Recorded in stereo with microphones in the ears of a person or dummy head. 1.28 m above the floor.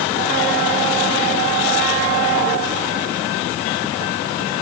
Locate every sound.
Only background noise.